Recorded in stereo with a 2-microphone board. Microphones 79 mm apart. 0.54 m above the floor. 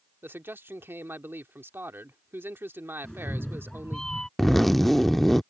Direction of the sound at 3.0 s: 10° left (ahead or behind).